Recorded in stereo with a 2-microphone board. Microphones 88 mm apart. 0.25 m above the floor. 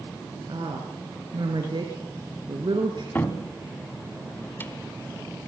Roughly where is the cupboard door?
Left.